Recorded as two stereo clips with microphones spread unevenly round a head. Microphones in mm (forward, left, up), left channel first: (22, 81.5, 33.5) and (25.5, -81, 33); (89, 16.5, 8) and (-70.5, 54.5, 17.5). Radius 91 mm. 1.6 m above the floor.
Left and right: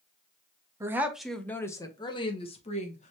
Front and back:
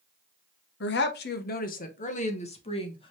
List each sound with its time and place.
0.8 s a woman speaking: 20° right, 0.9 m; by 3.1 s 45° left, 1.6 m